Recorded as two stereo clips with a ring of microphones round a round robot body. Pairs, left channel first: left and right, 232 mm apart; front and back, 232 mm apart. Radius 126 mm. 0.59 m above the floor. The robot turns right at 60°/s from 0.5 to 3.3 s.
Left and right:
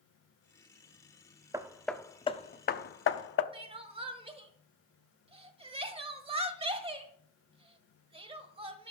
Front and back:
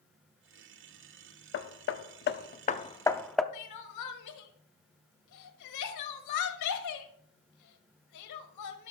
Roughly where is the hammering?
Ahead.